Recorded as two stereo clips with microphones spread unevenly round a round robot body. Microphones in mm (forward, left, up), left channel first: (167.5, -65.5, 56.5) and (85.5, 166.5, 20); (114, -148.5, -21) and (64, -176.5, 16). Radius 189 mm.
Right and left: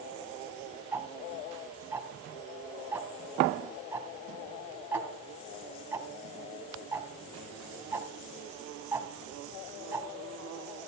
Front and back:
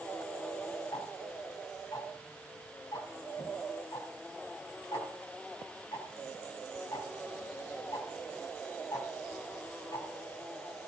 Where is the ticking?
30° left, 2.5 m.